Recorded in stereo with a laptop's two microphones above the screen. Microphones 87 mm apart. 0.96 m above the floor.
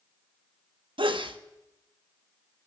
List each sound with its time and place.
1.0 s a sneeze: 75° right (ahead or behind), 1.3 m